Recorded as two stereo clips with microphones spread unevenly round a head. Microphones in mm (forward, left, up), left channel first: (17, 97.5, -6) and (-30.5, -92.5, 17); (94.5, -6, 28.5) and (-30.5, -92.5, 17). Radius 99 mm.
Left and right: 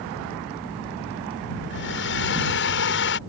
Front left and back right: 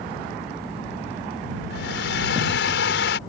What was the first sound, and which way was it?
A hair dryer, 40° left.